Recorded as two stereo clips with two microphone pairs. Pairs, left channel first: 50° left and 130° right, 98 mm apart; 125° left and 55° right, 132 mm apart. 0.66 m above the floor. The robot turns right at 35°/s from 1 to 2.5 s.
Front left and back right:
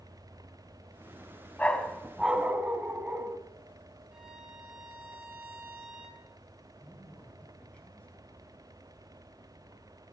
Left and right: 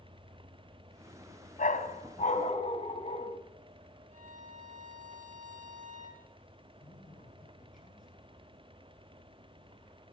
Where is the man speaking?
130° left, 7 m.